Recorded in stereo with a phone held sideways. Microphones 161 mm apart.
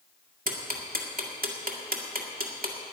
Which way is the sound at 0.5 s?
65° right (ahead or behind).